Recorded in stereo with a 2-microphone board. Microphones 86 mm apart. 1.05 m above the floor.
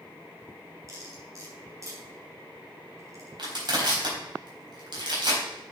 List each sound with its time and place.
0.9 s cutlery clinking: 35° right (ahead or behind), 4 m
3.4 s crushing: 60° right (ahead or behind), 4 m